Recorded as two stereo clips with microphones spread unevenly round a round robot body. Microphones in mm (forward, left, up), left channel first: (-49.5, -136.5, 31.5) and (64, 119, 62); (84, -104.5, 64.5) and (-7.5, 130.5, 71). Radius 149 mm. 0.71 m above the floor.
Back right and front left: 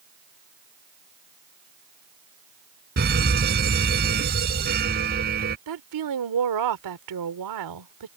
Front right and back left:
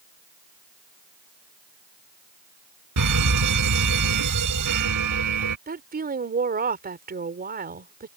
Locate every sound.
3.0 s a fire alarm: 125° left
5.7 s a woman speaking: 55° left